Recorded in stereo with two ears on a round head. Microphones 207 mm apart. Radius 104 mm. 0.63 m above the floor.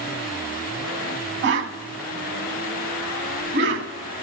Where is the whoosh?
50° right (ahead or behind), 0.7 m.